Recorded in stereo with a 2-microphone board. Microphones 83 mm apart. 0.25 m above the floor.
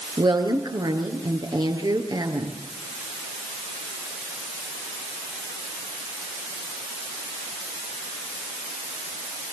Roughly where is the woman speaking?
Right.